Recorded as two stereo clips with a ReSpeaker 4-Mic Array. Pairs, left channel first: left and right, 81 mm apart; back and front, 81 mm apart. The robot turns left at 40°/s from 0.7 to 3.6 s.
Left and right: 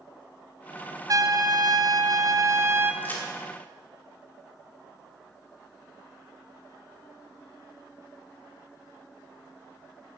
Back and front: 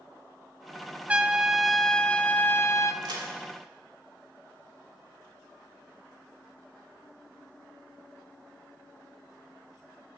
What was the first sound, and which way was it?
A trumpet, 70° right.